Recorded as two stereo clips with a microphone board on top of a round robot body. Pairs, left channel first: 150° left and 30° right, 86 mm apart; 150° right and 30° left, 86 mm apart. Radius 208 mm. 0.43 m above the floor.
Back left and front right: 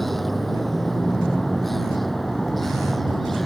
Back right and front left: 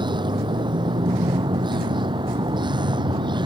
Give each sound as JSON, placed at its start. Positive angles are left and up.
{"t": 0.0, "sound": "a vehicle", "azimuth_deg": 60}